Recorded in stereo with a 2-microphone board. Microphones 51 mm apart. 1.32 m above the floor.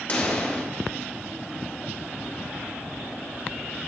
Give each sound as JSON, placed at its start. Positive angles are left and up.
{"t": 0.1, "sound": "a pop", "side_deg": 30, "distance_m": 2.0}